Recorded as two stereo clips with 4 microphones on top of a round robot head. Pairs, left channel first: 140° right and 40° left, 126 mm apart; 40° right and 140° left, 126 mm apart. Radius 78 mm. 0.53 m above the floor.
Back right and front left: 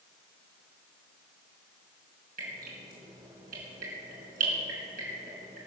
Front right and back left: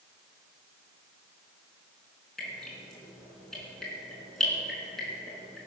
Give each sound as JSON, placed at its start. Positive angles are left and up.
{"t": 2.4, "sound": "dripping", "azimuth_deg": 50, "distance_m": 4.5}